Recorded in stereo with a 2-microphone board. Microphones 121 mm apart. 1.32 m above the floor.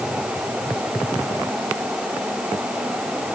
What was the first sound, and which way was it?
Only background noise.